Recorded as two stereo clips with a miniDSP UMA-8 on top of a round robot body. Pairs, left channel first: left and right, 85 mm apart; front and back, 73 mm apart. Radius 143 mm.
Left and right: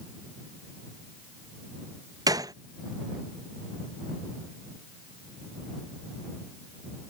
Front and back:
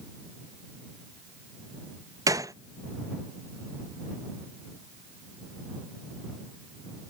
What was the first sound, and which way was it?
A gunshot, 135° right.